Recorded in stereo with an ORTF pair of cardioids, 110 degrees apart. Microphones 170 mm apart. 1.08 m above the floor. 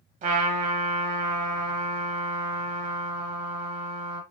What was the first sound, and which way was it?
A trumpet, 50° right.